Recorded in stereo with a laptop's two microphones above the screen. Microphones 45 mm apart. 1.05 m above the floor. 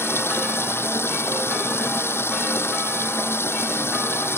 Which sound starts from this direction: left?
Running water, at 0.0 s.